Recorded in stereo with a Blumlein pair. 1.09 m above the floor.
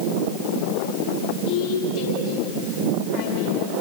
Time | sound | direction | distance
1.4 | a woman speaking | 35° left | 5 m